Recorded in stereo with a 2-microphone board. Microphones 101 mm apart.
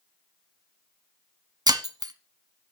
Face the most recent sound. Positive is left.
turn(degrees=-40)  # may be behind; listen again after turning